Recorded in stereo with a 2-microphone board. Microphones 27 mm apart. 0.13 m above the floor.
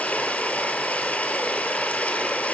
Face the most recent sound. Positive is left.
turn(degrees=65)  # may be behind; listen again after turning